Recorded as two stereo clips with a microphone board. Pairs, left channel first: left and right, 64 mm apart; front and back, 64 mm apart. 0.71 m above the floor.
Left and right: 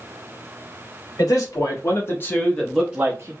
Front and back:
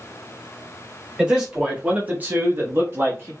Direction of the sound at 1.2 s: 100° left.